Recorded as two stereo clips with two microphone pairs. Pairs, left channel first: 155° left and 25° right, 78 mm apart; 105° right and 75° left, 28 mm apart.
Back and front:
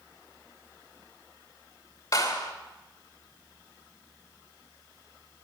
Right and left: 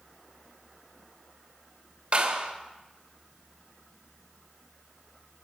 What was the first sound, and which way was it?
A clap, 120° left.